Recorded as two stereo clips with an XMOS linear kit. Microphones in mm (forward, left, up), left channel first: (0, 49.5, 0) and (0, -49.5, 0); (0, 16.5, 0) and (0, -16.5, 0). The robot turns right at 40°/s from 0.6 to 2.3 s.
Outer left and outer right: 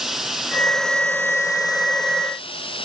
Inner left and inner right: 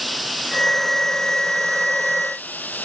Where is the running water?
Straight ahead; by 2.9 s 65° left.